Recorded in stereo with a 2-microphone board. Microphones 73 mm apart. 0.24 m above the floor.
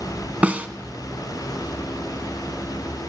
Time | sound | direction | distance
0.4 | a snare drum | 20° right (ahead or behind) | 0.6 m